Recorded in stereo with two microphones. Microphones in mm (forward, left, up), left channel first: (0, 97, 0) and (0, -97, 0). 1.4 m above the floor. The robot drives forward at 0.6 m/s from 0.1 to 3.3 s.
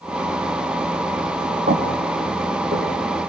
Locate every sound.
1.7 s footsteps: 50° right (ahead or behind), 7.5 m